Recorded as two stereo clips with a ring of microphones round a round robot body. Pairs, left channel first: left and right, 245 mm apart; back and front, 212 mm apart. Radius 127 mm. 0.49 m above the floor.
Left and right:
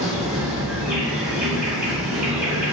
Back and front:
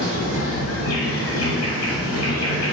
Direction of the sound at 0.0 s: Straight behind.